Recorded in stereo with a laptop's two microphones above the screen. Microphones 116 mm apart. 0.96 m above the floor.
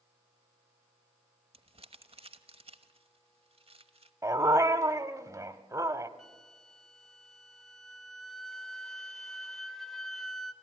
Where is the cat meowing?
I don't hear a cat meowing.